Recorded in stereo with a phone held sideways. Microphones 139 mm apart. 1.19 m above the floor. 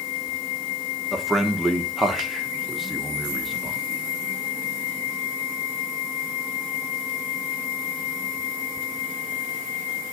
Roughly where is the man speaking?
Centre.